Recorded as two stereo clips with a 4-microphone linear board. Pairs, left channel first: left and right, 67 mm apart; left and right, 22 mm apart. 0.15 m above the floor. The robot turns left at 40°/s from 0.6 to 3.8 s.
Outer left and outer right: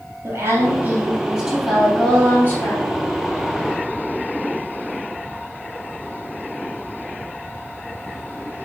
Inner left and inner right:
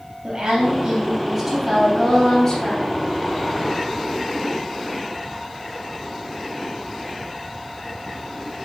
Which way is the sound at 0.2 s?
140° right.